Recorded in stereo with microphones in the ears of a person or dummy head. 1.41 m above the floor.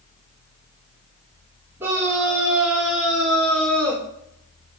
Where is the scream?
15° right (ahead or behind), 4.5 m; by 4.0 s 10° left (ahead or behind), 3 m.